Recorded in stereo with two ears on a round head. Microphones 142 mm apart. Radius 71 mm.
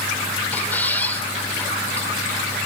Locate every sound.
0.5 s a squeak: 10° left (ahead or behind), 3 m